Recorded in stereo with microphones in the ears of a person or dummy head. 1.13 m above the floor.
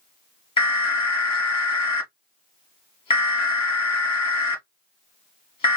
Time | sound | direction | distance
0.6 | an alarm | 25° left (ahead or behind) | 1.3 m